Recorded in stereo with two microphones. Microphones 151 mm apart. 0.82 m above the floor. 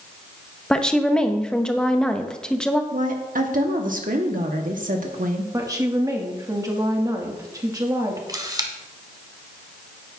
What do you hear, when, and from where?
0.7 s a woman speaking: 5° left (ahead or behind), 0.7 m
2.9 s a woman speaking: 65° right (ahead or behind), 1.1 m
5.5 s a woman speaking: 25° right (ahead or behind), 1.5 m
8.3 s a camera shutter: 25° right (ahead or behind), 1.2 m